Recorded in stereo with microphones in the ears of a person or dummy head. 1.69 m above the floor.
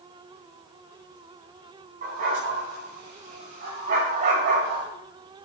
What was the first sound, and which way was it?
A dog barking, 40° right (ahead or behind).